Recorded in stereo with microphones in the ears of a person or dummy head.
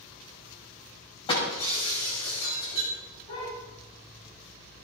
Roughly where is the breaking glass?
Left.